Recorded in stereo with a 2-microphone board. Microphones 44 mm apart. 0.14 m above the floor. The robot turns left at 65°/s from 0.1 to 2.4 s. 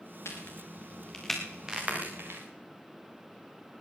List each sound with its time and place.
0.2 s a crack: 75° left (ahead or behind), 4.5 m; by 2.4 s 65° right (ahead or behind), 4.5 m